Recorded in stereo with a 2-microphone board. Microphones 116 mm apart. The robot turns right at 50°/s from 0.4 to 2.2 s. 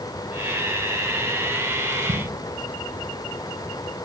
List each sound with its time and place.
1.9 s a splash: 85° right, 7.5 m; by 2.2 s 70° right (ahead or behind), 7.5 m